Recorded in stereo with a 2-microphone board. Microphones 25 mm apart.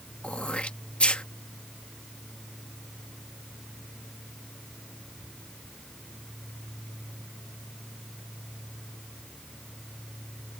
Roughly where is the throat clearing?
Left.